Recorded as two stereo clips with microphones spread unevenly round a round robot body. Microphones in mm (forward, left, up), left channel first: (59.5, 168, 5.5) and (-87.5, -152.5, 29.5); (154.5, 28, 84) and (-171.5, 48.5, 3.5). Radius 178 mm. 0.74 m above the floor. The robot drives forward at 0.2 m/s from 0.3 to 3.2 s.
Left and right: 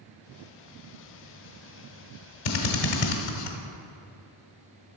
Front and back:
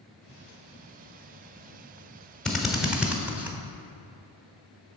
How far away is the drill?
About 1.3 m.